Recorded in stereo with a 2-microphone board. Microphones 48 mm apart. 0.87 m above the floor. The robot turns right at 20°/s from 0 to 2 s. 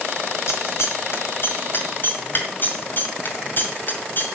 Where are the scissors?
75° left (ahead or behind), 1.9 m; by 4.2 s 45° left (ahead or behind), 1.9 m.